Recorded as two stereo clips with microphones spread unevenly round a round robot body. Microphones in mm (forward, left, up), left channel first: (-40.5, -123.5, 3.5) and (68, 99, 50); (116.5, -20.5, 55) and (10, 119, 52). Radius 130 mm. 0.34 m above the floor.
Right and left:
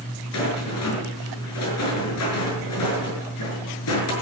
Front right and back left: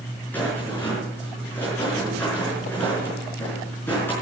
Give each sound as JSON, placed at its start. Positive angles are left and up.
{"t": 0.3, "sound": "a rattle", "azimuth_deg": -135, "distance_m": 5.5}